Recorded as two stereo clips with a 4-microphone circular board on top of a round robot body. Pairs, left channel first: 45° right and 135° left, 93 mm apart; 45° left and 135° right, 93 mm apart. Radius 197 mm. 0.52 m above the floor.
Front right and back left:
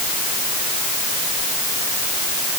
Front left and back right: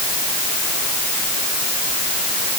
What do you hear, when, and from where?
Only background noise.